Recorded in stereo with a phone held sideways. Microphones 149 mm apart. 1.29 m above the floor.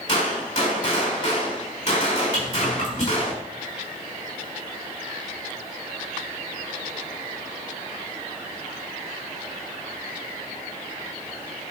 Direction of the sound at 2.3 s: 55° left (ahead or behind).